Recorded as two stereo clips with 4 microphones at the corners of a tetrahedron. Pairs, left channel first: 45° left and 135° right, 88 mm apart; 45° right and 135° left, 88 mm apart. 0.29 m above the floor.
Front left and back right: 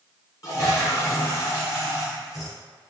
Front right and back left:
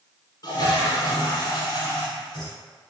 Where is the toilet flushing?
5° right, 1.7 m.